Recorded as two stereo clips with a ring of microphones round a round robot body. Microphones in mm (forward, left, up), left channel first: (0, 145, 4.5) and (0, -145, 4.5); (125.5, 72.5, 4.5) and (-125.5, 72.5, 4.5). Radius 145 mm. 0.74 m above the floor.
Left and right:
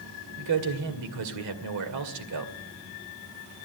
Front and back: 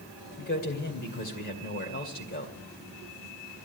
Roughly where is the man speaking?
Ahead right.